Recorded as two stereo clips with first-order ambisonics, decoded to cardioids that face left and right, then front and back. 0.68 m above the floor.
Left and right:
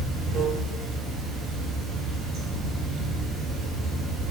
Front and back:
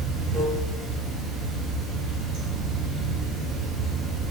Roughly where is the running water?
Behind right.